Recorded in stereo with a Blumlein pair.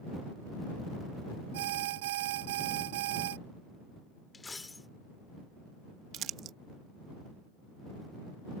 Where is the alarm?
55° right.